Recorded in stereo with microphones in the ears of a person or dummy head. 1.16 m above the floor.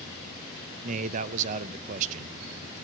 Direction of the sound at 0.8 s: 45° right (ahead or behind).